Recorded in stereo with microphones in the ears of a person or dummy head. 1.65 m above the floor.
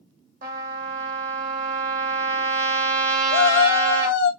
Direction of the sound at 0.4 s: 45° right (ahead or behind).